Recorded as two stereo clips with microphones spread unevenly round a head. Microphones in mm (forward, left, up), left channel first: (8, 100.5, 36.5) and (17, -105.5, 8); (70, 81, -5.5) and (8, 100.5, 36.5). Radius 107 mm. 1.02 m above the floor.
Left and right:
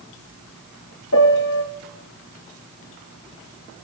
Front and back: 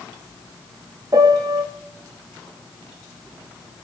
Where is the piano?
120° left, 1.6 m.